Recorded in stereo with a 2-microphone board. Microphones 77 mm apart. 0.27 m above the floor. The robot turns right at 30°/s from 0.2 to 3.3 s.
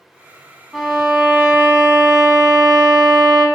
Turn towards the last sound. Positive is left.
turn(degrees=-105)